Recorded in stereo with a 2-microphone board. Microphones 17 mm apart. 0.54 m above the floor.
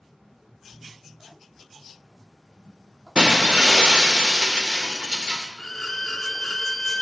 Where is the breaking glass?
70° right (ahead or behind), 0.9 m.